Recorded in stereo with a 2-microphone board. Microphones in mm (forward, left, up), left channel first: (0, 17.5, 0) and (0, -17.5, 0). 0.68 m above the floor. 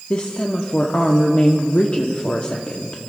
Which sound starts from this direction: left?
A woman speaking, at 0.1 s.